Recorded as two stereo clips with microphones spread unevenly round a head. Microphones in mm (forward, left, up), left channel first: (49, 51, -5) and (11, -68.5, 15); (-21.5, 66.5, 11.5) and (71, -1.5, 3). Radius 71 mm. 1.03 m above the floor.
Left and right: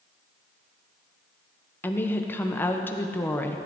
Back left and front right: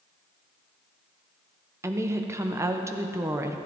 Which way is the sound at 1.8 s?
15° left.